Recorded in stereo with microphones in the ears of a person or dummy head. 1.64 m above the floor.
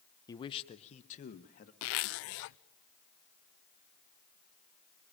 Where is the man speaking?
20° left (ahead or behind), 0.9 m; by 1.7 s 45° left (ahead or behind), 1.9 m.